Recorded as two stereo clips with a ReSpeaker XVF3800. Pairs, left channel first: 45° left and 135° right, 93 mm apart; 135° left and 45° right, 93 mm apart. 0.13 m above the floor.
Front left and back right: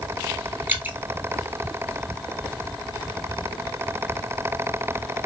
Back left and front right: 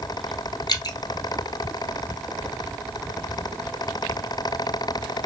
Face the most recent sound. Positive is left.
turn(degrees=160)